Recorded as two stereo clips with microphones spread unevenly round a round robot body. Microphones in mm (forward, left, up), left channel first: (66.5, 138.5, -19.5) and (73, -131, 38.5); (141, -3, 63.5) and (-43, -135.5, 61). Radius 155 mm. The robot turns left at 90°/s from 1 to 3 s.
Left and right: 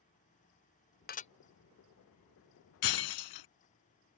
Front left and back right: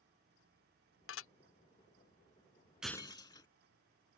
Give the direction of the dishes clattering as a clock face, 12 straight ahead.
10 o'clock.